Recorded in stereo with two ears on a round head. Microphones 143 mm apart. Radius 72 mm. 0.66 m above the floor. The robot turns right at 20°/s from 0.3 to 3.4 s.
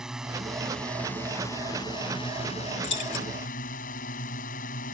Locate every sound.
0.0 s a drone: 5° right; by 5.0 s 60° left
2.8 s keys jangling: 85° left; by 3.3 s 80° left